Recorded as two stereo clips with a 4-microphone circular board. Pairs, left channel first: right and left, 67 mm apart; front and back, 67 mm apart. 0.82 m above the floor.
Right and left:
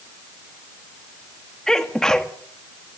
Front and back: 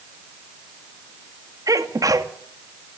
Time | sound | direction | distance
1.7 | a sneeze | 170° right | 1.8 m